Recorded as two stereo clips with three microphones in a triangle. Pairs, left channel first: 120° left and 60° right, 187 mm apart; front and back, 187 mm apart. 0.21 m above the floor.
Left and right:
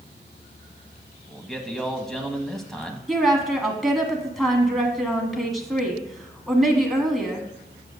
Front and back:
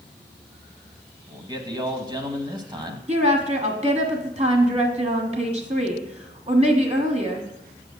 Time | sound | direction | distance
1.3 | a man speaking | 155° right | 1.0 m
3.1 | a woman speaking | 150° right | 1.4 m